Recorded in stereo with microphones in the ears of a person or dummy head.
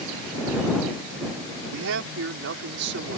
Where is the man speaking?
80° right; by 3.2 s 55° right (ahead or behind).